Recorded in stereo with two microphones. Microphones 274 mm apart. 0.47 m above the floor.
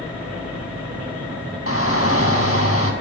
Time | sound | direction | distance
1.7 | a shout | 55° left (ahead or behind) | 4 m